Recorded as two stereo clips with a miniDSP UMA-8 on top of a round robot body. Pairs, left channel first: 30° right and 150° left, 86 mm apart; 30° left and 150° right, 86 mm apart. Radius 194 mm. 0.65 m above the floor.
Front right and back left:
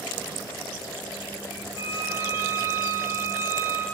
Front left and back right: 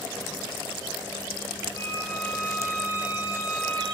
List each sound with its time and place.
1.8 s a violin: 90° left, 1.3 m